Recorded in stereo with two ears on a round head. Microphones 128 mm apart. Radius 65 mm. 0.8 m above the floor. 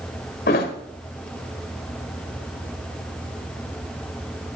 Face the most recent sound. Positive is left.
turn(degrees=80)